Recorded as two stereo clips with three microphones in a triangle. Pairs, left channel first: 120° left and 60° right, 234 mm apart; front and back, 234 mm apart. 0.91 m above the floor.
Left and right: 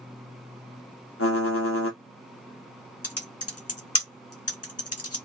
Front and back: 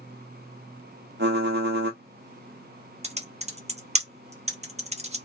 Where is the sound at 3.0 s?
115° left, 1.2 m.